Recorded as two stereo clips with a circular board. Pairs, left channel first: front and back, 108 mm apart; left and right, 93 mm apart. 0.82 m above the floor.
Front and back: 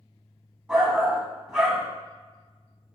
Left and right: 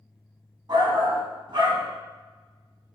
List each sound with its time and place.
0.7 s a shout: 105° right, 0.9 m